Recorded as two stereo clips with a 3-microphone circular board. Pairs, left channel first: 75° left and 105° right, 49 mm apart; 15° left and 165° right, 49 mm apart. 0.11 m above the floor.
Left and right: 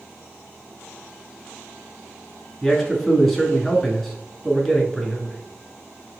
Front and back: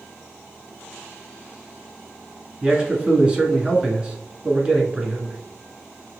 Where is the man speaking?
155° left, 1.3 m.